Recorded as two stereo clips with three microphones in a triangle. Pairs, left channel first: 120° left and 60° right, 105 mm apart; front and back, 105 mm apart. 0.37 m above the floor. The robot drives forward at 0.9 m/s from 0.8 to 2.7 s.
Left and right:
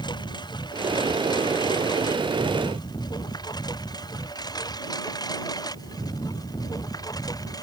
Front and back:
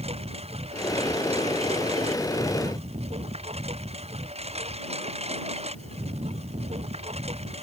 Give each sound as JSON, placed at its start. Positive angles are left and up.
{"t": 0.0, "sound": "a lawn mower", "azimuth_deg": 165}